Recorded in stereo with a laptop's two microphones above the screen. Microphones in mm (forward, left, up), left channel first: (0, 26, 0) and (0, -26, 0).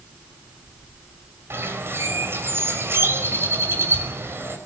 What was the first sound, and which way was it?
A bird, 50° right (ahead or behind).